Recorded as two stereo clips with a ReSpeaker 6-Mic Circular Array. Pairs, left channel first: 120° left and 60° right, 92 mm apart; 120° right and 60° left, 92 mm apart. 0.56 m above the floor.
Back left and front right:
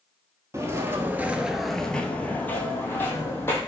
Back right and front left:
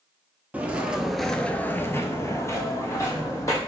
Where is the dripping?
No dripping in this recording.